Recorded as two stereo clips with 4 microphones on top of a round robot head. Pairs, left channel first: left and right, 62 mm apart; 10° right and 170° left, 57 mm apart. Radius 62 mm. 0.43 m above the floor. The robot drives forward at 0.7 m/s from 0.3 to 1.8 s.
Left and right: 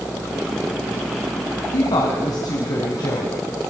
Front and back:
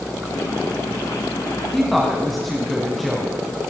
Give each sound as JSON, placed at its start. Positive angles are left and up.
{"t": 1.7, "sound": "a woman speaking", "azimuth_deg": 80, "distance_m": 3.5}